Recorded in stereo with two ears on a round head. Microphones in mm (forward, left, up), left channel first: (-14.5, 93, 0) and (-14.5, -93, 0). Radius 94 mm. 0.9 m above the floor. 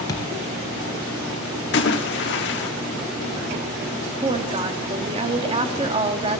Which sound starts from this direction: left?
A splash, at 1.7 s.